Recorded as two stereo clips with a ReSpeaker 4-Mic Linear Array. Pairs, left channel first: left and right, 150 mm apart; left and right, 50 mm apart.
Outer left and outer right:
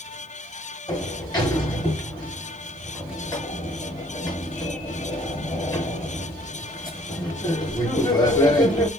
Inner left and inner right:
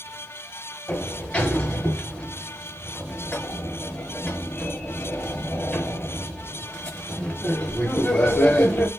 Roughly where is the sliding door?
Left.